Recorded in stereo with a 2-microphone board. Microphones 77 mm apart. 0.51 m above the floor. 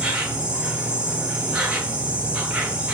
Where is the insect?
15° right (ahead or behind), 0.9 m.